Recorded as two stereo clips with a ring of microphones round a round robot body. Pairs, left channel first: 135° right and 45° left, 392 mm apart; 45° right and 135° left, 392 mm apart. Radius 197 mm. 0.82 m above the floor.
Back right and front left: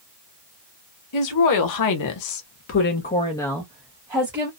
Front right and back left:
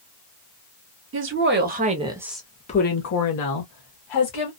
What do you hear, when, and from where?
1.1 s a woman speaking: 170° right, 1.1 m; by 4.5 s 30° right, 1.1 m